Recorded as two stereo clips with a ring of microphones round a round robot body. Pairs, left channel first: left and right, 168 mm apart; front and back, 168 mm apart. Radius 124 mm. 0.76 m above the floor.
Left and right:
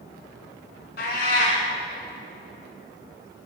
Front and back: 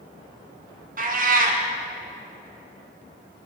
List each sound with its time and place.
1.0 s a cat meowing: 145° left, 1.9 m